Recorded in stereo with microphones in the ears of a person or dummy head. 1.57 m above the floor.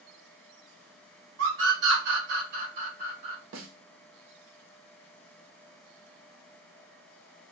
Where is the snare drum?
60° right (ahead or behind), 0.7 m.